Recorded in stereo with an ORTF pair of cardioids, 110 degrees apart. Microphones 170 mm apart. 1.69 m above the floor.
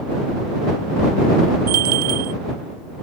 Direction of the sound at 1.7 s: 60° right.